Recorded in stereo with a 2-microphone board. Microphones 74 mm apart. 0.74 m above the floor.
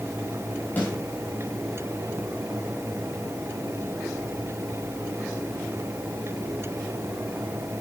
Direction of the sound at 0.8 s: 25° left (ahead or behind).